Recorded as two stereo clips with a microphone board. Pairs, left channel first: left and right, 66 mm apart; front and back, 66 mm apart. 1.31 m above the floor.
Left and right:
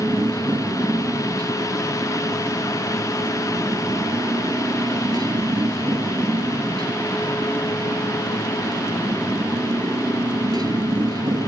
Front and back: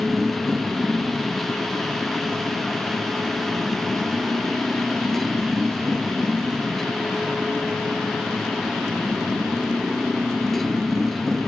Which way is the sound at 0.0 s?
90° right.